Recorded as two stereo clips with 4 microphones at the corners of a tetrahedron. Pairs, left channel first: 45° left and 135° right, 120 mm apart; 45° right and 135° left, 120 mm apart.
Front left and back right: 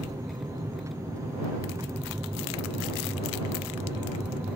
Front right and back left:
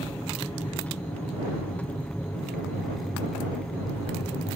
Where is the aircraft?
115° right; by 4.6 s 105° right.